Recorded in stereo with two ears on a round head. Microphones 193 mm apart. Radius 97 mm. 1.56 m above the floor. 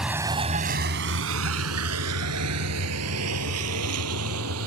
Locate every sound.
0.0 s a vehicle: 5° right (ahead or behind); by 4.7 s 80° right